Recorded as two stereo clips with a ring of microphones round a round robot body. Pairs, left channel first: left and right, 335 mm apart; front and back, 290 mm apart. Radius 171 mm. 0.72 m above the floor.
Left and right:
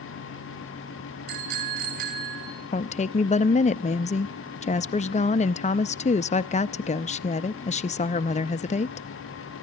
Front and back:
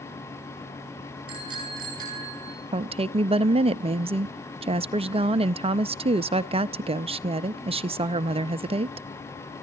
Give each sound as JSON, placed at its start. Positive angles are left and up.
{"t": 1.3, "sound": "a bicycle bell", "azimuth_deg": -105, "distance_m": 6.0}
{"t": 2.7, "sound": "a woman speaking", "azimuth_deg": 135, "distance_m": 0.5}